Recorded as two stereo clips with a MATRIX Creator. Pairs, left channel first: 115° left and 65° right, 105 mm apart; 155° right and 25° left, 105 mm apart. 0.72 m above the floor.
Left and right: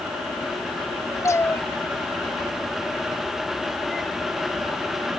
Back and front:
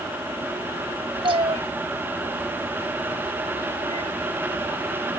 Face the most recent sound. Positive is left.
turn(degrees=20)